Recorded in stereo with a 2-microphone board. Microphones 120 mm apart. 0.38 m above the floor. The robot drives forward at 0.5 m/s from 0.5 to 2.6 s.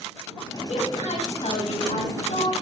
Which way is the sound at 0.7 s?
70° left (ahead or behind).